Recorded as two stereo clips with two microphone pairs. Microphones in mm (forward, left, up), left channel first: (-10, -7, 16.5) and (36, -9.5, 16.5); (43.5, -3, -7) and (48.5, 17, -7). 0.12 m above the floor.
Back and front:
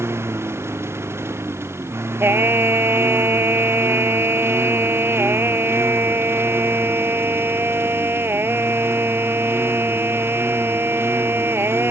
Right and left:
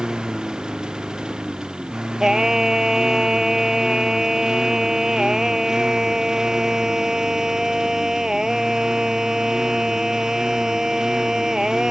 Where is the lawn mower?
20° left.